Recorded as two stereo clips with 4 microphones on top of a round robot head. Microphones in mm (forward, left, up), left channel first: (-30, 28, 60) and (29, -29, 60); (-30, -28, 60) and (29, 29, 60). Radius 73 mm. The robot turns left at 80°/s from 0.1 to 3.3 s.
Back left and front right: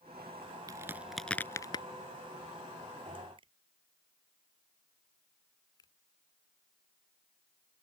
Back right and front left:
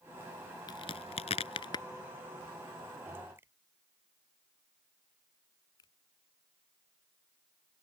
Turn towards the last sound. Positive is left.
turn(degrees=180)